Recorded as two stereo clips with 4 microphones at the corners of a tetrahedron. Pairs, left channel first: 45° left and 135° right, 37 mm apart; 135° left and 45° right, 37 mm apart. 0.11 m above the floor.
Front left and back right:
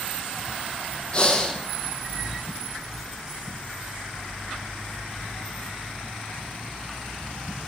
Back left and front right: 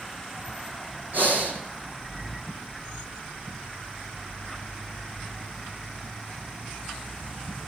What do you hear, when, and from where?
1.1 s breathing: 10° right, 2.5 m